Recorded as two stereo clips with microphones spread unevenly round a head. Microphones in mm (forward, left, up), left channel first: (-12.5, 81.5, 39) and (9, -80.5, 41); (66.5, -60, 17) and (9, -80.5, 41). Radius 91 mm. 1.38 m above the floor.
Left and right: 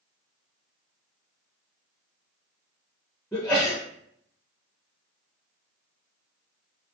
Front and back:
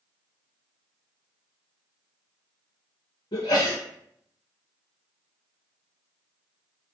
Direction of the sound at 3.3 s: 15° left.